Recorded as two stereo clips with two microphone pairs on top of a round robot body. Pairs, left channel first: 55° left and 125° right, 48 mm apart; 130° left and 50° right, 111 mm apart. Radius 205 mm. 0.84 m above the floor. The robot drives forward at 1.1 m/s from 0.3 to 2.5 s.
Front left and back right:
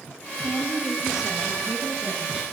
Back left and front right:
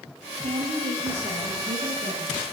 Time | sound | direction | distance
0.4 | a woman speaking | 35° right | 7.5 m